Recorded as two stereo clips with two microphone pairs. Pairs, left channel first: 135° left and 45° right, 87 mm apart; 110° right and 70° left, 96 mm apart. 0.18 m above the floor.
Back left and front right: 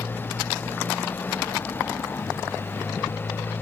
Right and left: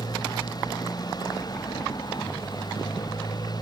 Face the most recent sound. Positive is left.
turn(degrees=-155)